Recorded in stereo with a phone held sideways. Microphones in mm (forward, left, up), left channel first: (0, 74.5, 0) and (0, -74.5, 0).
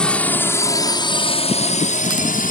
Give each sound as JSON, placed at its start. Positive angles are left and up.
{"t": 0.0, "sound": "a drone", "side_deg": 5}